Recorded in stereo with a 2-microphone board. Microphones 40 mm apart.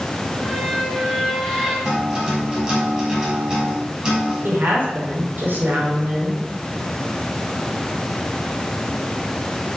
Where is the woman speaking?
50° right (ahead or behind), 5.5 m.